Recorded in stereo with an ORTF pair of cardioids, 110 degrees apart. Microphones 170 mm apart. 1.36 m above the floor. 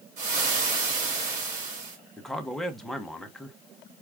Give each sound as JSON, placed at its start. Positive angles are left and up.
{"t": 0.2, "sound": "frying", "azimuth_deg": -55, "distance_m": 2.5}
{"t": 2.2, "sound": "a man speaking", "azimuth_deg": 0, "distance_m": 1.0}